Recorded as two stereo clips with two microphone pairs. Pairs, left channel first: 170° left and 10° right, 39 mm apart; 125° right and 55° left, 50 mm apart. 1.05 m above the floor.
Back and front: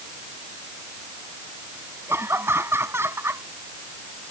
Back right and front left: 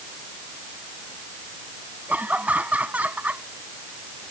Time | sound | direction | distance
2.1 | laughter | 5° right | ?